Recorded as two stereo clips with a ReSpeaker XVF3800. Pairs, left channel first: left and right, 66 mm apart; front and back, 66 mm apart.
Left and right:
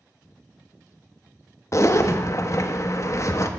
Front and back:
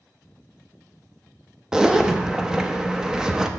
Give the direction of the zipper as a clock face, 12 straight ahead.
9 o'clock.